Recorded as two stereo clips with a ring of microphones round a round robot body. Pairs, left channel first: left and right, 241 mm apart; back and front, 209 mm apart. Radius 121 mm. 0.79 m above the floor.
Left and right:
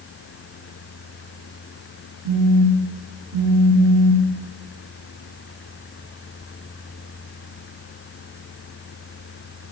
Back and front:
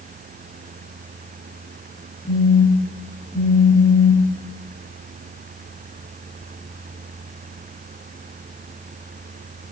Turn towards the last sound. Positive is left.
turn(degrees=-90)